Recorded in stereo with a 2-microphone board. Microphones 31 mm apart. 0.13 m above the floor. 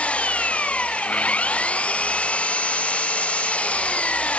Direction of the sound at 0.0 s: 45° left (ahead or behind).